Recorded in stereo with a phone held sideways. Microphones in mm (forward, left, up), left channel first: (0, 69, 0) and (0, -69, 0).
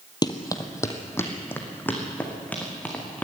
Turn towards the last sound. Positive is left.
turn(degrees=10)  # may be behind; listen again after turning